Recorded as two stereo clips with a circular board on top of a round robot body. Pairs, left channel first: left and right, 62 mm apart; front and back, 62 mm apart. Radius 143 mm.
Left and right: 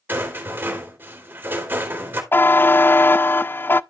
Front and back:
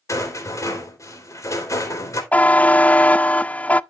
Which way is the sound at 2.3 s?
55° left.